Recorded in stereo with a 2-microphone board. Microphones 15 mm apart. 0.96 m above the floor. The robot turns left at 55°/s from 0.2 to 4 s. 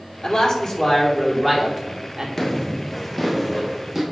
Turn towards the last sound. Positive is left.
turn(degrees=-35)  # may be behind; listen again after turning